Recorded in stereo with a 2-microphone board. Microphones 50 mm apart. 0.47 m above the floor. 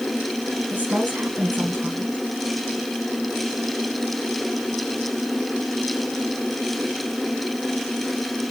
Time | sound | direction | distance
0.7 | a woman speaking | 35° right (ahead or behind) | 4.5 m